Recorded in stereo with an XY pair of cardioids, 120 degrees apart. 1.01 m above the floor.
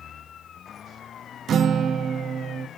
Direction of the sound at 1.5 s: 50° right.